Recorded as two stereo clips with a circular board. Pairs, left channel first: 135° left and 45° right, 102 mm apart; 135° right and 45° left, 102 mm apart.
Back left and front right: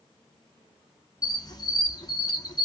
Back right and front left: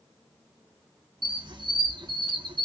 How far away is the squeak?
About 0.8 m.